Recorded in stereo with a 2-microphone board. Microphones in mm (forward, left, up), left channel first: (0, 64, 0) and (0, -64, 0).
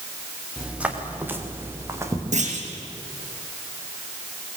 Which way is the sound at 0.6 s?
5° right (ahead or behind).